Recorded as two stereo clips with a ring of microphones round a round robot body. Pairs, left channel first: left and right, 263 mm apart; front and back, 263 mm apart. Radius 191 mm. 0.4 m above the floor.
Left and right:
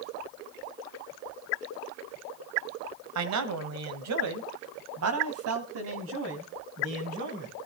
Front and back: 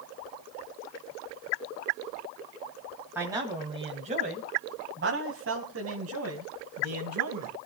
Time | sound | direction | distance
3.1 | a man speaking | 95° right | 2.0 m